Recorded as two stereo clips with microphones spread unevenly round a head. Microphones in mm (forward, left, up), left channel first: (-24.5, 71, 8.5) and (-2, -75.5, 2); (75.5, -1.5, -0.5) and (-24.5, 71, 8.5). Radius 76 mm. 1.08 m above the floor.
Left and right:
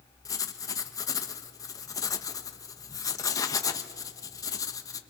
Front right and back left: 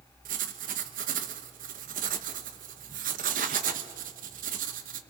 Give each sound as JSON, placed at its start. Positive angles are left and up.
{"t": 0.2, "sound": "writing", "azimuth_deg": 165, "distance_m": 1.2}